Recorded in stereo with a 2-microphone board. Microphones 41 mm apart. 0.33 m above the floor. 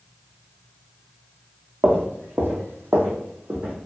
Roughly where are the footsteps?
Right.